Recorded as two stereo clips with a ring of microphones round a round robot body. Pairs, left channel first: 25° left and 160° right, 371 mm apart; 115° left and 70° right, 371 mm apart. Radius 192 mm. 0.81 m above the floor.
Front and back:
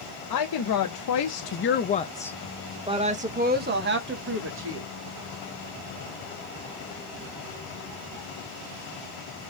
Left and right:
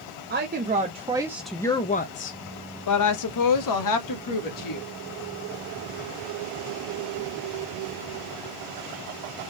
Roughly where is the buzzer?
No buzzer in this recording.